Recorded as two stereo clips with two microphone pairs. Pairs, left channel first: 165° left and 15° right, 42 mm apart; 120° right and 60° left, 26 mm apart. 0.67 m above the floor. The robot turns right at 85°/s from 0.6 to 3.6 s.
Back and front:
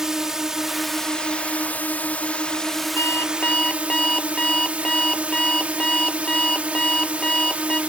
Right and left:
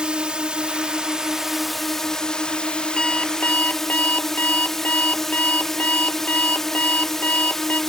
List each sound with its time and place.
0.0 s a drone: 55° left; by 7.9 s 50° right
3.0 s an alarm clock: 175° left; by 7.8 s 130° right